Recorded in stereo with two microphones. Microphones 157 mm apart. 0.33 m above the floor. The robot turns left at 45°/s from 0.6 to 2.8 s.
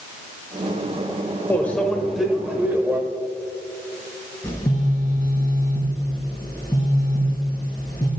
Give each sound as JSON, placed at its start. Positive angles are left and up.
{"t": 1.5, "sound": "a microwave", "side_deg": 10, "distance_m": 0.8}
{"t": 4.4, "sound": "a phone buzzing", "side_deg": 25, "distance_m": 2.5}